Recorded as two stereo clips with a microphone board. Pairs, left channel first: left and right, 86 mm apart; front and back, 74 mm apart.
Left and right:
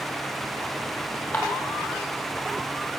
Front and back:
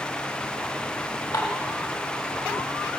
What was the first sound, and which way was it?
Dishes clattering, 15° left.